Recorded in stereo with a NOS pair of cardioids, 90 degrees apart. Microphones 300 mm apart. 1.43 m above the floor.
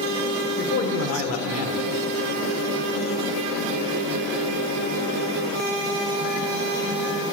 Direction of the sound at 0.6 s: 50° left.